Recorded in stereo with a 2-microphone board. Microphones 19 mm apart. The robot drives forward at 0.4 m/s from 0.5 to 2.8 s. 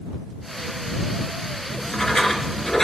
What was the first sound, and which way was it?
Writing, 30° left (ahead or behind).